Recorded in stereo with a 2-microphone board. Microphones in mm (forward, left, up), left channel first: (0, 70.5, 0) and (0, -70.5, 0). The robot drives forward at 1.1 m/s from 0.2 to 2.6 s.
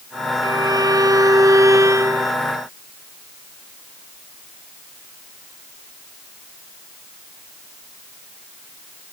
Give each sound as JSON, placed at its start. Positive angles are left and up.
{"t": 0.4, "sound": "a violin", "side_deg": -30}